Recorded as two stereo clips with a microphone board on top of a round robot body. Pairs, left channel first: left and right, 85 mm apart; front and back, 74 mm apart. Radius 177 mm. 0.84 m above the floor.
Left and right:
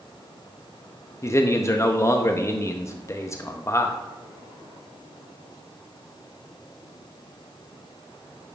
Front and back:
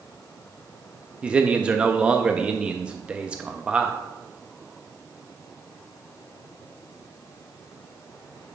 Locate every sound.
1.2 s a man speaking: 115° left, 0.7 m